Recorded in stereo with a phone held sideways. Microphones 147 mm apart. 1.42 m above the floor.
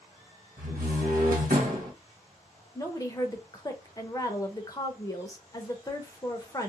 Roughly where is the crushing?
I don't hear crushing.